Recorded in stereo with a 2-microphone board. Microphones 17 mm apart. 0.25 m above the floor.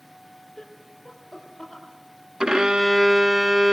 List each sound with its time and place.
0.6 s laughter: 55° left (ahead or behind), 5 m
2.4 s a violin: 50° right (ahead or behind), 0.6 m